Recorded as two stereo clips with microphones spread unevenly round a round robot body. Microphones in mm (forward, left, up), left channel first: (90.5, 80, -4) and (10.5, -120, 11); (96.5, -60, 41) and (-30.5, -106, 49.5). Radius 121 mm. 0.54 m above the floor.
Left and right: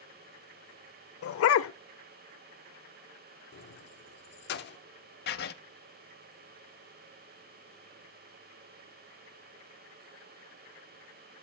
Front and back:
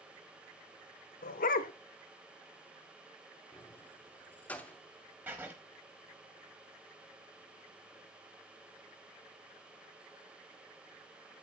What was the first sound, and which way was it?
A dog barking, 50° left.